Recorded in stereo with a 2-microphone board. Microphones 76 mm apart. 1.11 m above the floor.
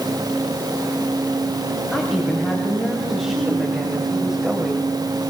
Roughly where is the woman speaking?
Centre.